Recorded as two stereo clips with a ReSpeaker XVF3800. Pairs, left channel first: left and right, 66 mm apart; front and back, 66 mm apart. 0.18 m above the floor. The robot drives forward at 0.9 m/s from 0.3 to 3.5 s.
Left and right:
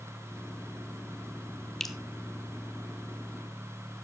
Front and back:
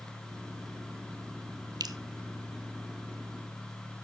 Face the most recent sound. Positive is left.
turn(degrees=180)